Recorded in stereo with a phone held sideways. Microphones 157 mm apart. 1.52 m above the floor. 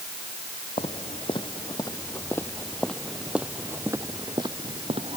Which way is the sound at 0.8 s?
40° left (ahead or behind).